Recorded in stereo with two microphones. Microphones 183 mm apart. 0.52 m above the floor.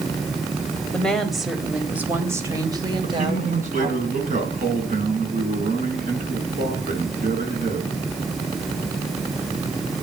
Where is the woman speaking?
5° left (ahead or behind), 3.5 m; by 4.0 s 35° right (ahead or behind), 3.5 m.